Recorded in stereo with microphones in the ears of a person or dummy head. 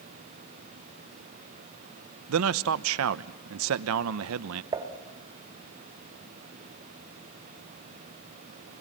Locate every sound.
2.3 s a man speaking: 65° right (ahead or behind), 0.7 m
4.7 s dishes clattering: 20° right (ahead or behind), 1.6 m